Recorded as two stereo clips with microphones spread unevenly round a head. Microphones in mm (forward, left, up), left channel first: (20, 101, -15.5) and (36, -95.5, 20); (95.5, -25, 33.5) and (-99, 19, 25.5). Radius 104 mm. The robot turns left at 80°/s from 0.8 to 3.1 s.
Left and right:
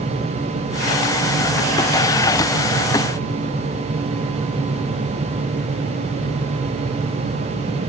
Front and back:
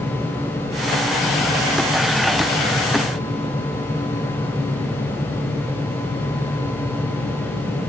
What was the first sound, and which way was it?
Only background noise.